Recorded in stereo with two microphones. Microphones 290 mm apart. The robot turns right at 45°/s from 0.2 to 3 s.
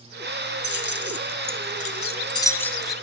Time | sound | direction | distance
0.6 | keys jangling | 35° left (ahead or behind) | 0.9 m